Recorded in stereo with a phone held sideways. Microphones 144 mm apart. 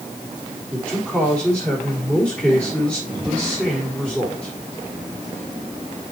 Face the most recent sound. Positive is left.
turn(degrees=10)  # may be behind; listen again after turning